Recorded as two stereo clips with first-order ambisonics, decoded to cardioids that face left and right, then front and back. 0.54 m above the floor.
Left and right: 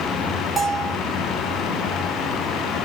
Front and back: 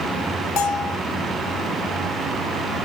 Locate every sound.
0.6 s a bell: 10° right, 2.5 m